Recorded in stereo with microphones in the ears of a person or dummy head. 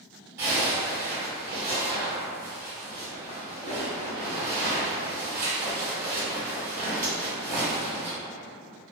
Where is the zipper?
25° right (ahead or behind), 1.4 m.